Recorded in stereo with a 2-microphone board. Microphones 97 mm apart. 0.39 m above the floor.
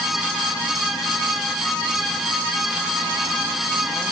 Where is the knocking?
No knocking in this recording.